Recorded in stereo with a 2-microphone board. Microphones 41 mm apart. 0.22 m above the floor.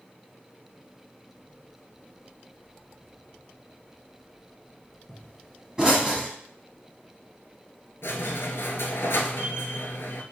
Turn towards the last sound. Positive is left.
turn(degrees=80)